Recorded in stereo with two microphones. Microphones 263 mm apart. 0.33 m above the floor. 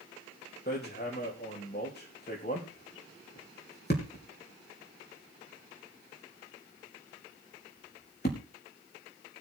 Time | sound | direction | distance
0.7 | hammering | 40° left (ahead or behind) | 4.5 m